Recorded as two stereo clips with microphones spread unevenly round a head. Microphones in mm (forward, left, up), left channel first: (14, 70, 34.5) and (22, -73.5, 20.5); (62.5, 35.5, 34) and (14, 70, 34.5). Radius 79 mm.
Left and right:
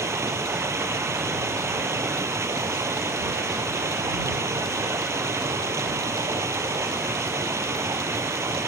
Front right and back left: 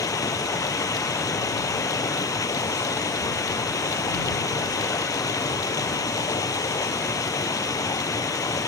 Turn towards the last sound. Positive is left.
turn(degrees=-15)